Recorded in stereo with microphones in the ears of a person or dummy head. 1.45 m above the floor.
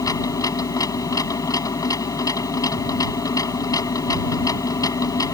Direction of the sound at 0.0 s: 20° left (ahead or behind).